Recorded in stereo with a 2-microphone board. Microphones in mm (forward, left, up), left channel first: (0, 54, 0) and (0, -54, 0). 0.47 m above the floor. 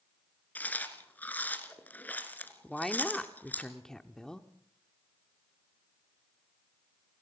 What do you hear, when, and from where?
0.6 s chewing: 15° left (ahead or behind), 1.6 m
2.6 s a woman speaking: 5° left (ahead or behind), 1.0 m